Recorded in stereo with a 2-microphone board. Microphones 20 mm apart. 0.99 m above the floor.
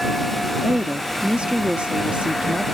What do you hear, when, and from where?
0.6 s a woman speaking: 65° right (ahead or behind)